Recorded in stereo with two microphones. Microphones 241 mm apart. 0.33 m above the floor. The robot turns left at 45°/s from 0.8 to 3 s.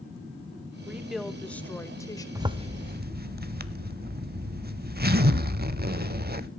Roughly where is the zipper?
Centre.